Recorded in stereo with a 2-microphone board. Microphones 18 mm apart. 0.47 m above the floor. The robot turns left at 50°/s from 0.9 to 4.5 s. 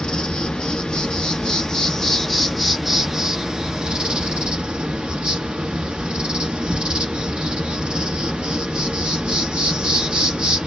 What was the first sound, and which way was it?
An insect, 80° left.